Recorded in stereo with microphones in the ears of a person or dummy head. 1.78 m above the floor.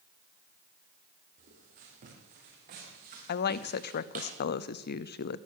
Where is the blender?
I don't hear a blender.